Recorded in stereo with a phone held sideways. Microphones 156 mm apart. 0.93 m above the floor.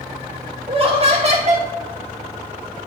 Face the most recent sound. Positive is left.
turn(degrees=-50)  # may be behind; listen again after turning